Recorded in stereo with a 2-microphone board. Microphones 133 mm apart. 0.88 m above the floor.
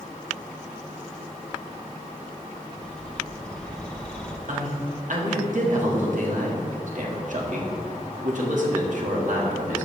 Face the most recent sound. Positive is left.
turn(degrees=-65)  # may be behind; listen again after turning